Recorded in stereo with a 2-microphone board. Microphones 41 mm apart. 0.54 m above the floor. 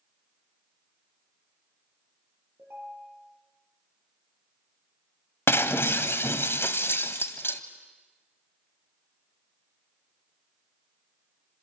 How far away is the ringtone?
About 9.5 m.